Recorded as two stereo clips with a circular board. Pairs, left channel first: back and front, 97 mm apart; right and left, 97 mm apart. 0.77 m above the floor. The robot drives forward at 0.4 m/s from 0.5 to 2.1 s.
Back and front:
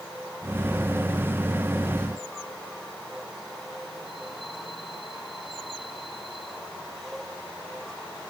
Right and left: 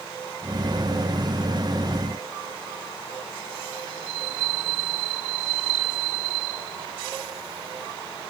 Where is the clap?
I don't hear a clap.